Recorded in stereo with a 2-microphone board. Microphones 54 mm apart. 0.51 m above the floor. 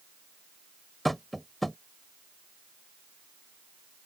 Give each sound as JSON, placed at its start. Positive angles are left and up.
{"t": 1.1, "sound": "tapping", "side_deg": 5}